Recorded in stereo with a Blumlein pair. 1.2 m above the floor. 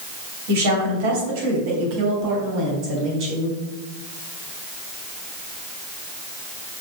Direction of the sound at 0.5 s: 55° right.